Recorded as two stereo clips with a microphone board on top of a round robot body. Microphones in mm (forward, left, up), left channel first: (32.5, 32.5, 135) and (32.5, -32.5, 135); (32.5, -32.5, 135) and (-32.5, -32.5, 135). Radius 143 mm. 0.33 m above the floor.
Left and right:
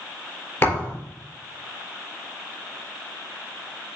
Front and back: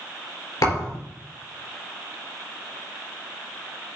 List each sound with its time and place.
0.6 s a thud: 35° left, 4.5 m